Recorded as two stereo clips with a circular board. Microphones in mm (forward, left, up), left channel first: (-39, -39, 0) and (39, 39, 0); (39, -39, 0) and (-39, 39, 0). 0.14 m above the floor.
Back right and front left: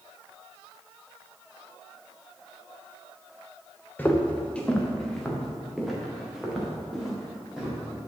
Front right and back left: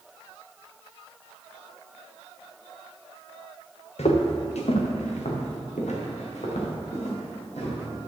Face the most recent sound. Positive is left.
turn(degrees=-40)